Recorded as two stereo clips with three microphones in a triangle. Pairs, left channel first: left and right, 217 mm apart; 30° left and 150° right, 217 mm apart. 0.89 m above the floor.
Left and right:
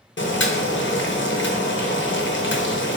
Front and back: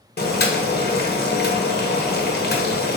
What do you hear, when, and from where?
0.2 s boiling: 70° left, 0.6 m